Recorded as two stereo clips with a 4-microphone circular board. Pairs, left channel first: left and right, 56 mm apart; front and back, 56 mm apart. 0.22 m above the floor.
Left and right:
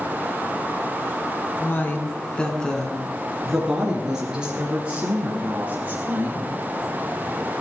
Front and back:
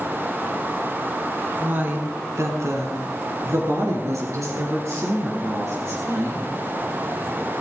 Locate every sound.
1.6 s a woman speaking: 130° left, 1.9 m; by 6.5 s 155° right, 5 m